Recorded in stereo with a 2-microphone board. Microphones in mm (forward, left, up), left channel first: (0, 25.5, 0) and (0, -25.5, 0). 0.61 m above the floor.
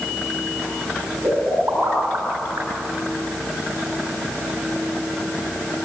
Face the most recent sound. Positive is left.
turn(degrees=-85)